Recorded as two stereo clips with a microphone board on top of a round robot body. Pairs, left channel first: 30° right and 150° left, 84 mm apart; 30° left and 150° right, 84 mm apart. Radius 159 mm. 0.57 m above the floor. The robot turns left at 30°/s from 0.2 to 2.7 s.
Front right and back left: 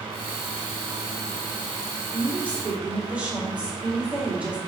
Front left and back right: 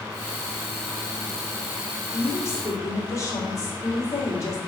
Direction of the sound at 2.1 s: 90° left.